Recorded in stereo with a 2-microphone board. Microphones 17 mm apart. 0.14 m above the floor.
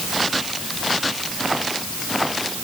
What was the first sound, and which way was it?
Only background noise.